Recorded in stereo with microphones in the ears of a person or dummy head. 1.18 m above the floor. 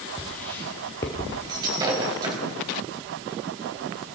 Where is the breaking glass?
25° right (ahead or behind), 4 m.